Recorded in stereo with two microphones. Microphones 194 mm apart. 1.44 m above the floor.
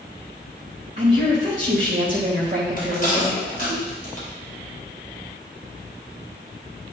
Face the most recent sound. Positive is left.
turn(degrees=45)  # may be behind; listen again after turning